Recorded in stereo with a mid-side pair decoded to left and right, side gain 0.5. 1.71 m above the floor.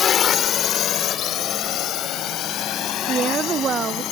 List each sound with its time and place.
0.0 s a drone: 50° left; by 4.1 s 70° left
3.1 s a woman speaking: 50° right